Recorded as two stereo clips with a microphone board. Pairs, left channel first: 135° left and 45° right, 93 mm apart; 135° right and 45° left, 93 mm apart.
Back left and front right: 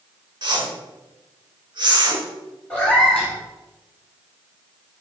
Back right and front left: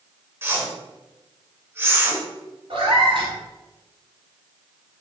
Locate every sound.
0.4 s a whoosh: 20° right, 0.7 m
2.7 s a cat meowing: 60° left, 2 m